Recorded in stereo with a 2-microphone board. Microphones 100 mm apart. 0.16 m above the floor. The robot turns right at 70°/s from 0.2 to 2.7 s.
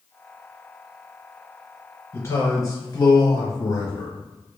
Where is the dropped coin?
I don't hear a dropped coin.